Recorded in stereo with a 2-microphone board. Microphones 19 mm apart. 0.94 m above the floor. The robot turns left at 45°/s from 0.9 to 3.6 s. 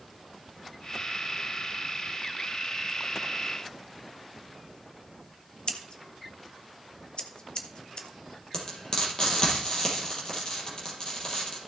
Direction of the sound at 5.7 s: 50° left (ahead or behind).